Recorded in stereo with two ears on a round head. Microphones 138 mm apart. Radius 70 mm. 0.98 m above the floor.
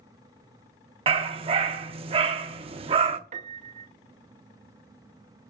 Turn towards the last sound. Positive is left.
turn(degrees=-45)  # may be behind; listen again after turning